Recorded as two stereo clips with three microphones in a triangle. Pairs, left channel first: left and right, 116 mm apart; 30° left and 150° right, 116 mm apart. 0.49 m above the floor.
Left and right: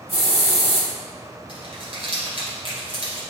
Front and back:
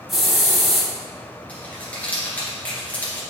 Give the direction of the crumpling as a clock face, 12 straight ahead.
2 o'clock.